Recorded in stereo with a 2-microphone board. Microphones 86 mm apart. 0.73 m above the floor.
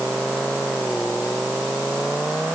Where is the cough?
I don't hear a cough.